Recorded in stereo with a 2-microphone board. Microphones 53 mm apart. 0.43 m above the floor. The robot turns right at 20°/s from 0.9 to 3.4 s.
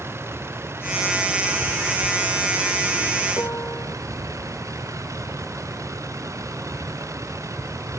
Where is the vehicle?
125° right; by 8.0 s 75° right.